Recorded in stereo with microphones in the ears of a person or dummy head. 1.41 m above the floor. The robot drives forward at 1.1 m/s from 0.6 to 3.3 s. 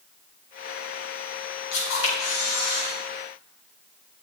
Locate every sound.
1.7 s a camera shutter: 85° left, 4.5 m; by 2.9 s 75° left (ahead or behind), 4.5 m